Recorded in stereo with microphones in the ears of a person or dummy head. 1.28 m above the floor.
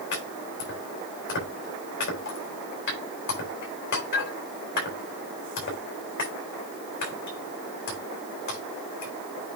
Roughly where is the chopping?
Left.